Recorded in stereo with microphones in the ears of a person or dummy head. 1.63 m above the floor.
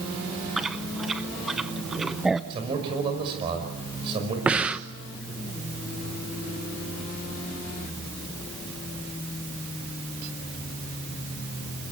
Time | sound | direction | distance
0.6 | chewing | centre (ahead or behind) | 0.6 m
2.5 | a man speaking | 30° right (ahead or behind) | 6 m
4.5 | breathing | 5° right (ahead or behind) | 1.0 m